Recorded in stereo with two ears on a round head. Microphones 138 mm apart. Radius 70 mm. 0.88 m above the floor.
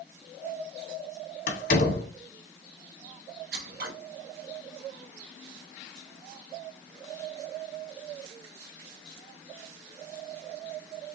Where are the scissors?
65° right (ahead or behind), 1.6 m.